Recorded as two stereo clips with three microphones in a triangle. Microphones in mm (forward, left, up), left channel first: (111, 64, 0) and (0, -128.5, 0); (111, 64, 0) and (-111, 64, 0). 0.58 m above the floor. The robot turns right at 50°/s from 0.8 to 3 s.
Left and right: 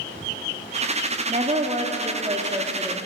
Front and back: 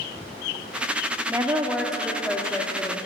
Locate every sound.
1.3 s a woman speaking: 120° right, 0.9 m; by 3.0 s 40° right, 0.9 m